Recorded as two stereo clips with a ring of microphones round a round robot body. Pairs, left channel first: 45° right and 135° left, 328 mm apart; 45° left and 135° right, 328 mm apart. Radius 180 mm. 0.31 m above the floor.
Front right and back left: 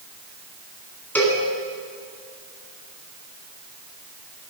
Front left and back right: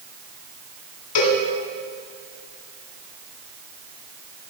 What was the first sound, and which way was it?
A cowbell, 40° left.